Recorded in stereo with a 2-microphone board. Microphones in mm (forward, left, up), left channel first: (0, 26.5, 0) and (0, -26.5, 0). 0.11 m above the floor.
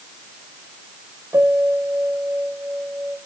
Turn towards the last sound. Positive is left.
turn(degrees=-70)  # may be behind; listen again after turning